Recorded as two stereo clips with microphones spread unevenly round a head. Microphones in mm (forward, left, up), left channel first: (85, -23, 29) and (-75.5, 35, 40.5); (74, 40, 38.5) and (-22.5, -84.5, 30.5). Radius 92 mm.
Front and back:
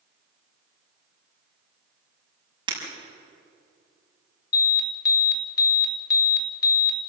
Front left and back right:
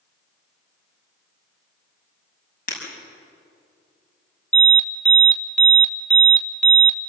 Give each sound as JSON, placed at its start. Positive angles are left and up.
{"t": 2.7, "sound": "breaking glass", "azimuth_deg": 95, "distance_m": 6.0}
{"t": 4.5, "sound": "an alarm", "azimuth_deg": -30, "distance_m": 2.5}